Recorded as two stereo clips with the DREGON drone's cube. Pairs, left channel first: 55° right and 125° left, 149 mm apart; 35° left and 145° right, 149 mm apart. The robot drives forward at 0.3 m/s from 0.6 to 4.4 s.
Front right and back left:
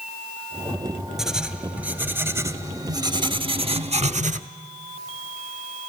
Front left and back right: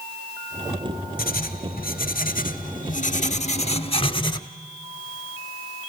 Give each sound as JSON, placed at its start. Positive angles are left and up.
{"t": 1.2, "sound": "writing", "azimuth_deg": 40, "distance_m": 1.2}